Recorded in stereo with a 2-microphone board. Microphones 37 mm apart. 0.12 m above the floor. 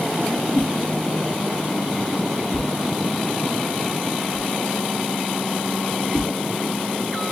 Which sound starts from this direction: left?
A whoosh, at 0.5 s.